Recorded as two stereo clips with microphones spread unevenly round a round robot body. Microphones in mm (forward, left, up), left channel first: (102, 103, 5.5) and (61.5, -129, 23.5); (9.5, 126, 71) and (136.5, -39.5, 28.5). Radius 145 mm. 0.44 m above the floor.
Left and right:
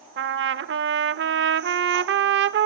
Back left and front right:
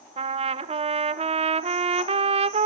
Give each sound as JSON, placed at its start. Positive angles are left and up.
{"t": 0.2, "sound": "a trumpet", "azimuth_deg": -85, "distance_m": 0.9}